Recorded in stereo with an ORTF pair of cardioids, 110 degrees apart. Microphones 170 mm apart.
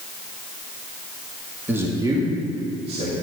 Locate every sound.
1.7 s a man speaking: 10° right, 2 m; by 3.1 s 40° right, 3 m